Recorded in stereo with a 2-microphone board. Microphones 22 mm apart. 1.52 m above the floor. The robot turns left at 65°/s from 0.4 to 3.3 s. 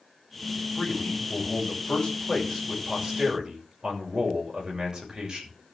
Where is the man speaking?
130° left, 6.5 m; by 5.5 s 35° right, 6.5 m.